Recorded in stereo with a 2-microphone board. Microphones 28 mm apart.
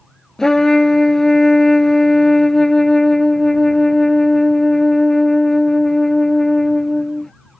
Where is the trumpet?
20° left (ahead or behind).